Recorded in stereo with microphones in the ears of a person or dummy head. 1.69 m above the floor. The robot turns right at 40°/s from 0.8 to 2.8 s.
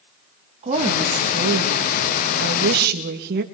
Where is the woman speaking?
135° right, 2.5 m; by 3.4 s 55° right, 2.5 m.